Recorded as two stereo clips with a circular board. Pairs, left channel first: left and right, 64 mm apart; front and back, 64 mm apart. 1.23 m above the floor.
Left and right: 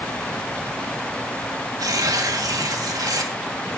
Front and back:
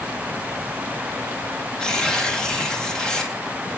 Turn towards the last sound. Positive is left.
turn(degrees=-80)